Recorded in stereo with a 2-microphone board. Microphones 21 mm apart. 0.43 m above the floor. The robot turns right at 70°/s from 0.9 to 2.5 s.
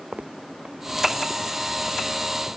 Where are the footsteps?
60° right (ahead or behind); by 2.0 s 50° left (ahead or behind).